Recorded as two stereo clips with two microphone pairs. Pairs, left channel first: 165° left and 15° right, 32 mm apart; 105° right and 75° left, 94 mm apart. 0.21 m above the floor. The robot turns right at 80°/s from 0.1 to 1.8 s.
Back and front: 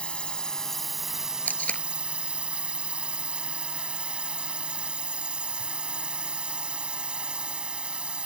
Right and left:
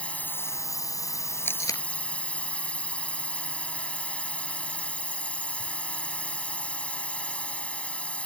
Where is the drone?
170° right; by 8.3 s 35° right.